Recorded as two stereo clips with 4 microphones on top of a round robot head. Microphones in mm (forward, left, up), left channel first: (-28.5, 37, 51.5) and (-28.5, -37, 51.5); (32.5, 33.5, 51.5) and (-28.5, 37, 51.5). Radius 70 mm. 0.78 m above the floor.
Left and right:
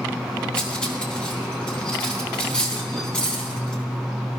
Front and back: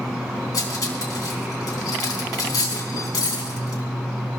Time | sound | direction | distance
0.5 | cutlery clinking | 10° left | 4 m